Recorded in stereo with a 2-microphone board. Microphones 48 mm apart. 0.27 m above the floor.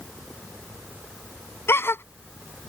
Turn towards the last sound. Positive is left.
turn(degrees=55)  # may be behind; listen again after turning